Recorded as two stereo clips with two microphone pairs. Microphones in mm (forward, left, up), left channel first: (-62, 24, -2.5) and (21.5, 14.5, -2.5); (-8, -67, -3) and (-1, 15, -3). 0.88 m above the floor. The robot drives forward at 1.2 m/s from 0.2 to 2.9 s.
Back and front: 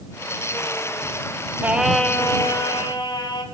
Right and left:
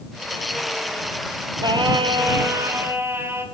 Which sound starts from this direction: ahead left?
Singing, at 1.6 s.